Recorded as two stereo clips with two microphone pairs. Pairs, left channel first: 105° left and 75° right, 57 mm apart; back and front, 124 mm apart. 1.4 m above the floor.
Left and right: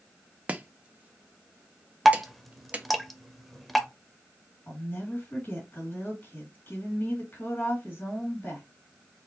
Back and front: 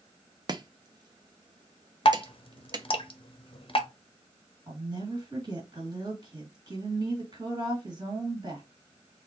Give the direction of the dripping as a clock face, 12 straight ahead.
5 o'clock.